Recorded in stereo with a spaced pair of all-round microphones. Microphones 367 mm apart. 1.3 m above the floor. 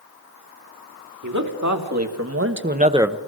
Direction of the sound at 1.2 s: 55° right (ahead or behind).